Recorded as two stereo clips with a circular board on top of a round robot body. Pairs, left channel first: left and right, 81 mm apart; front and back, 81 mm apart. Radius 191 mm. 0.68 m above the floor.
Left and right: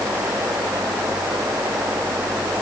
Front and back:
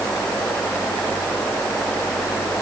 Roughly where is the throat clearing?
No throat clearing in this recording.